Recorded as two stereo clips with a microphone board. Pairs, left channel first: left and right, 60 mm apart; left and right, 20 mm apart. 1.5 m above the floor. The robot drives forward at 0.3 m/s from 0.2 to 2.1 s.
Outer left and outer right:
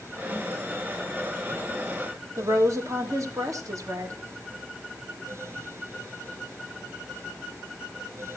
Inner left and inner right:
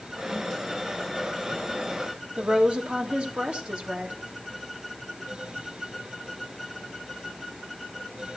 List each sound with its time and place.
2.4 s a woman speaking: 65° right (ahead or behind), 2.5 m